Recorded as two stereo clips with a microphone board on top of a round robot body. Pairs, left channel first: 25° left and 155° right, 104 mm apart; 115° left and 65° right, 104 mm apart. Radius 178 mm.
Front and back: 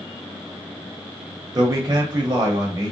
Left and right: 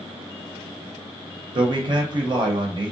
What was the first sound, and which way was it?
A man speaking, 105° right.